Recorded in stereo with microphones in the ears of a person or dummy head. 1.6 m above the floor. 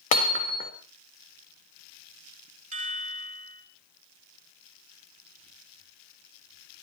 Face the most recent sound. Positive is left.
turn(degrees=-45)  # may be behind; listen again after turning